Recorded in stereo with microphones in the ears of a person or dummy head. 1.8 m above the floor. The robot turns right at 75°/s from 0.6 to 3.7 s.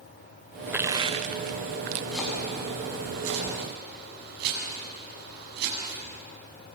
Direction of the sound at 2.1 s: 5° left (ahead or behind).